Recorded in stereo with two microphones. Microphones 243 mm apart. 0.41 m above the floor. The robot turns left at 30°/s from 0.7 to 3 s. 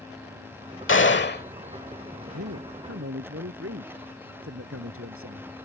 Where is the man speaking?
80° right; by 5.7 s 65° right (ahead or behind).